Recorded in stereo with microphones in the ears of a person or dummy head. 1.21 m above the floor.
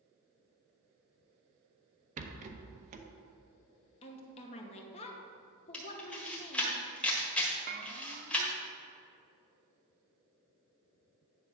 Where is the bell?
45° right (ahead or behind), 0.6 m.